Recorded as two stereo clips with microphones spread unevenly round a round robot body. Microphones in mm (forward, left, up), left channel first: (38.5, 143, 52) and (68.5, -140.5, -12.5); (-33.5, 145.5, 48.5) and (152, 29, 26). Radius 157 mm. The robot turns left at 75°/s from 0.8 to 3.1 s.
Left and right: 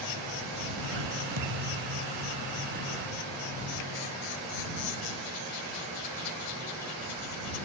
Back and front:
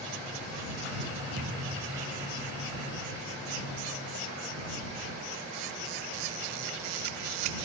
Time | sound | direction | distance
1.4 | a thud | 65° right | ?